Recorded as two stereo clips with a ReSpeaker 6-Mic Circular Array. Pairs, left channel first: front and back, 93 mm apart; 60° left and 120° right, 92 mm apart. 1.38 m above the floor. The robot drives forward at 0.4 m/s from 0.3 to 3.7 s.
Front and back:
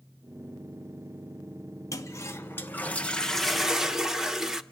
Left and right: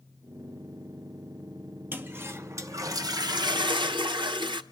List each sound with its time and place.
1.9 s a toilet flushing: 55° right, 1.1 m; by 4.6 s 95° right, 0.9 m